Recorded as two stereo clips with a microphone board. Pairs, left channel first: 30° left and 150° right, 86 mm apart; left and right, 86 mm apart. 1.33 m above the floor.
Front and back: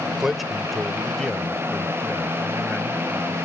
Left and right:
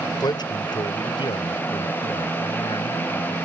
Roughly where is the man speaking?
Behind left.